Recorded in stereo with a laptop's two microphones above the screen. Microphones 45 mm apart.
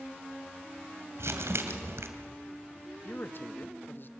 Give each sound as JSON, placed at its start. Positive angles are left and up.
{"t": 1.2, "sound": "crumpling", "side_deg": -75, "distance_m": 2.0}
{"t": 3.0, "sound": "a man speaking", "side_deg": 50, "distance_m": 0.9}